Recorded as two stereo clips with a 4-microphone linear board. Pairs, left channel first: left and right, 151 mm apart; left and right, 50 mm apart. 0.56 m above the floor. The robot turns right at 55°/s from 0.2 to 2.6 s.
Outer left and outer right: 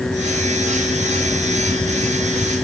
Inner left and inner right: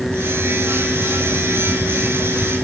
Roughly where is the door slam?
I don't hear a door slam.